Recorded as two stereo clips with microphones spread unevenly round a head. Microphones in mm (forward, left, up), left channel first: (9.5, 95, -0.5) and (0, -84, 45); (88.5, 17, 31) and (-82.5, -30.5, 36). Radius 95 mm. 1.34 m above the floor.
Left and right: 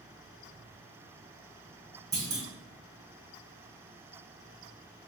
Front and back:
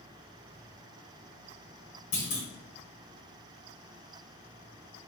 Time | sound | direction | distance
2.1 | a clunk | 30° right | 1.9 m